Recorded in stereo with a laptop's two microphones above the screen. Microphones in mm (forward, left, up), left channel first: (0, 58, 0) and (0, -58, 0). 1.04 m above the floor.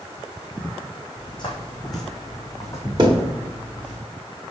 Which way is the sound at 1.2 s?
45° left (ahead or behind).